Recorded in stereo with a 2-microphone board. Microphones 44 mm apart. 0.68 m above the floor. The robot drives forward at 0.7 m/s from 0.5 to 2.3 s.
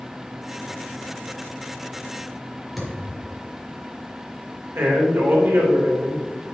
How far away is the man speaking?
About 3 m.